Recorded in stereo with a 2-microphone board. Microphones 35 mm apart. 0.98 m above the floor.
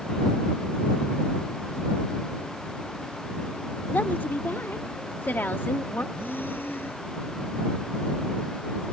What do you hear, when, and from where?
3.9 s a woman speaking: 70° left (ahead or behind); by 6.0 s 65° left (ahead or behind)
6.2 s breathing: 80° left